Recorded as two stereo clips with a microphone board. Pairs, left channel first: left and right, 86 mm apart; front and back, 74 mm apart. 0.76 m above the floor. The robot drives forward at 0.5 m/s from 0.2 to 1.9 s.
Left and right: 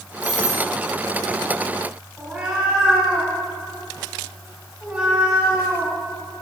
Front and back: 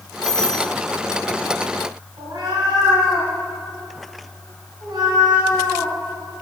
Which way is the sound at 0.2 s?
75° left.